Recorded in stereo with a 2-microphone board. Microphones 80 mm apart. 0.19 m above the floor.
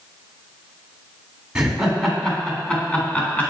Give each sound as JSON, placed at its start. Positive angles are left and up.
{"t": 1.6, "sound": "laughter", "side_deg": -10, "distance_m": 1.9}